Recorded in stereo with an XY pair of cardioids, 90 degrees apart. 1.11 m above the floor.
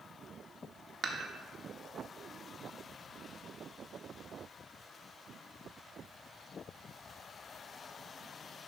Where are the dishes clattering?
50° right, 1.0 m.